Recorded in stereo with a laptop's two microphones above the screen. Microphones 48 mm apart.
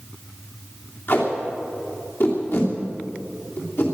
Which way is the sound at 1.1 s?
55° left (ahead or behind).